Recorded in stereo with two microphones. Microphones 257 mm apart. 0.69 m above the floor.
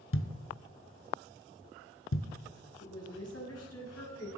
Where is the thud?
55° left (ahead or behind), 0.8 m.